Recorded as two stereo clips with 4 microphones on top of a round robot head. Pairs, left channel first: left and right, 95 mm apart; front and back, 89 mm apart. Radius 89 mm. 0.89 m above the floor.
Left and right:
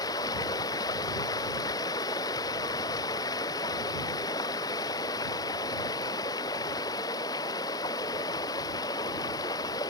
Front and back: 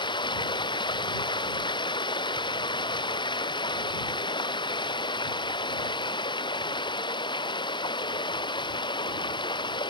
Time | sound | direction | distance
0.0 | running water | 30° left | ?